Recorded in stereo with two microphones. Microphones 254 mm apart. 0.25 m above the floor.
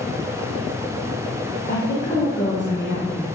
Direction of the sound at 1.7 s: 45° left (ahead or behind).